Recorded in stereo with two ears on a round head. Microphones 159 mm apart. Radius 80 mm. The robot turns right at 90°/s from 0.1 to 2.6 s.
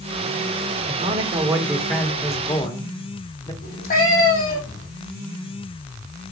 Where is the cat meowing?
50° left (ahead or behind), 4 m.